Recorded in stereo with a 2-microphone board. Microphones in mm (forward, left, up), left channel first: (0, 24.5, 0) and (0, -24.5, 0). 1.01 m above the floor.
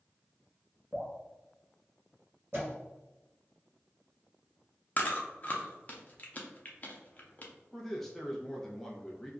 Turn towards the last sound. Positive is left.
turn(degrees=5)  # may be behind; listen again after turning